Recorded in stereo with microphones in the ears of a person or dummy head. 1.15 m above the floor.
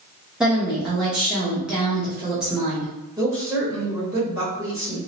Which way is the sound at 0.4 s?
5° right (ahead or behind).